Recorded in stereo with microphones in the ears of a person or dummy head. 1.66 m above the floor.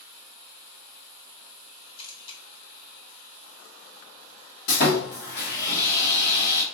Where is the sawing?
65° left (ahead or behind), 1.4 m.